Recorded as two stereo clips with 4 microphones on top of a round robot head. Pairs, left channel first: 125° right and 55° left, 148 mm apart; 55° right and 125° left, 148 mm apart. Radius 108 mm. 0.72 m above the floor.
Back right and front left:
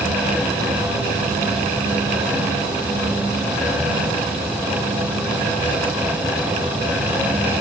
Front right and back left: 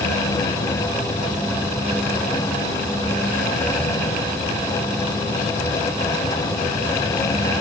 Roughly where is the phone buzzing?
I don't hear a phone buzzing.